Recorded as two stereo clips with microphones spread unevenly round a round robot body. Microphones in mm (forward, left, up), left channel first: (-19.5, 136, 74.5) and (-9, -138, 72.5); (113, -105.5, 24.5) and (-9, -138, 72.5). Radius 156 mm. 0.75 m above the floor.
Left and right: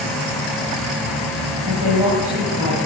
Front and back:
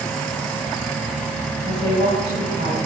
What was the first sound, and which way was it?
A woman speaking, 160° right.